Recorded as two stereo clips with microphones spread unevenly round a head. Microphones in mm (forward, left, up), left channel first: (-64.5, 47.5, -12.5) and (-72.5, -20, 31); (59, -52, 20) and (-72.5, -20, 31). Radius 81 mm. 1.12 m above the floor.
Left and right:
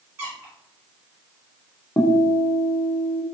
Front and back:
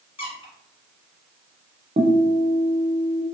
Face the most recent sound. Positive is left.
turn(degrees=115)